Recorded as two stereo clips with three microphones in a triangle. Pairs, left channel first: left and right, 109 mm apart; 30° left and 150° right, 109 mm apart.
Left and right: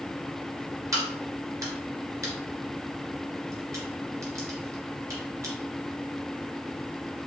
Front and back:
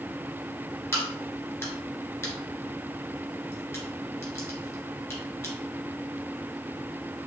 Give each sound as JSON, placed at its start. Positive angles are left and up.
{"t": 0.9, "sound": "a crack", "azimuth_deg": -35, "distance_m": 1.8}